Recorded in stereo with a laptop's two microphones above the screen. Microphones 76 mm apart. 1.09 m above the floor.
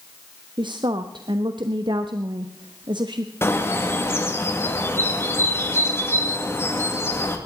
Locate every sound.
0.6 s a woman speaking: 70° right (ahead or behind), 1.0 m
3.4 s a bird: 30° left (ahead or behind), 2 m